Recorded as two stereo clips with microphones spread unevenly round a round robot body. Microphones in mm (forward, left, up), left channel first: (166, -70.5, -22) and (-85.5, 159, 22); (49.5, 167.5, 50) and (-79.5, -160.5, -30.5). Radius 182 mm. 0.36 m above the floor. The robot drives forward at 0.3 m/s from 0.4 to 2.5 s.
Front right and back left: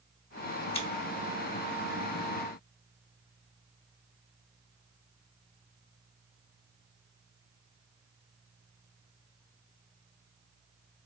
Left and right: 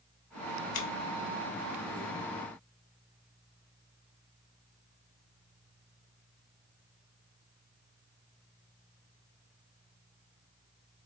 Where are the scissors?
35° left, 1.1 m.